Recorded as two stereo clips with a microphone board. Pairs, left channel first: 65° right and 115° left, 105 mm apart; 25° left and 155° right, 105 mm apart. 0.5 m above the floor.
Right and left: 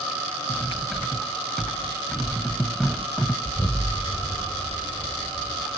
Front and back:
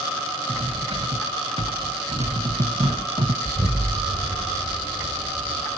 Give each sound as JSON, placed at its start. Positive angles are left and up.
{"t": 0.5, "sound": "cutlery clinking", "azimuth_deg": -155, "distance_m": 1.4}
{"t": 3.5, "sound": "an explosion", "azimuth_deg": -150, "distance_m": 1.7}